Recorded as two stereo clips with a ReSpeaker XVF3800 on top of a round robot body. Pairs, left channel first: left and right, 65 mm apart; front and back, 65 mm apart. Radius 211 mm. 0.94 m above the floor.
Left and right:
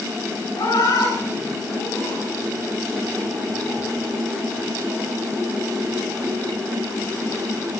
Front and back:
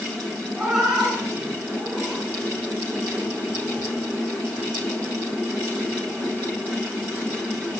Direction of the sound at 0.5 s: 100° left.